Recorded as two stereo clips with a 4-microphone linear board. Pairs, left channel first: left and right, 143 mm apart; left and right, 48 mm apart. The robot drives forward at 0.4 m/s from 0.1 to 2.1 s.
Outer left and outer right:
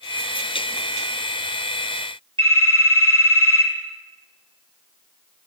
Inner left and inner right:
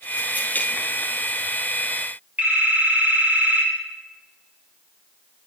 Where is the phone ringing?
40° right (ahead or behind), 2.5 m.